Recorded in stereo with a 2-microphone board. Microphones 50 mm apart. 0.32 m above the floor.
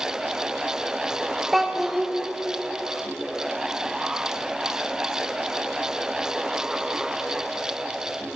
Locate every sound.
1.5 s a child speaking: centre (ahead or behind), 0.6 m